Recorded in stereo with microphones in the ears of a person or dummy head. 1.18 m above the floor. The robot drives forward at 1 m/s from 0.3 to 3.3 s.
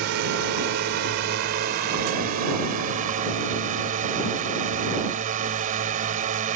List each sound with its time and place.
0.0 s a drone: 65° right (ahead or behind); by 6.6 s 45° right (ahead or behind)